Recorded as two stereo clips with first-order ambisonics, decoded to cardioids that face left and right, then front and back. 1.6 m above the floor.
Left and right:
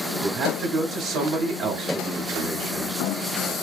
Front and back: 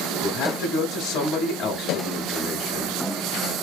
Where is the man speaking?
45° right, 0.8 m.